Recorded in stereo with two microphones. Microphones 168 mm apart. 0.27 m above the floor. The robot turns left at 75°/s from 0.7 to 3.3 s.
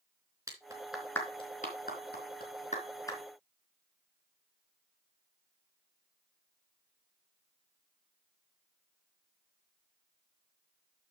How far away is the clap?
About 3.5 m.